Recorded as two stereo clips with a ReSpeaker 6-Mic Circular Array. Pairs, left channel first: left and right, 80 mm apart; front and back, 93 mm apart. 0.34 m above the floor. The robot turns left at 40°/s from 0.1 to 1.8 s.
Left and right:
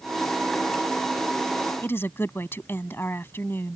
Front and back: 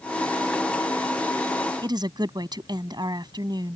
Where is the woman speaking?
150° left.